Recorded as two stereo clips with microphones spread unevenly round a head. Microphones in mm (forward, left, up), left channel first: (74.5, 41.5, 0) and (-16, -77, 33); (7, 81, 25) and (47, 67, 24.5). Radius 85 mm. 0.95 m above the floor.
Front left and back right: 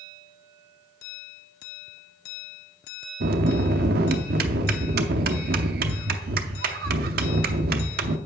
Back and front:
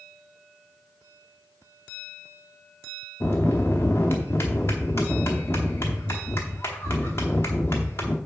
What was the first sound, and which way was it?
A bell, 135° right.